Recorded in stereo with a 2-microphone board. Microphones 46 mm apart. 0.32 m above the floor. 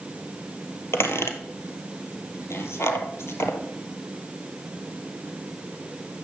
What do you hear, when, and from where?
0.9 s a squeak: 75° left (ahead or behind), 1.5 m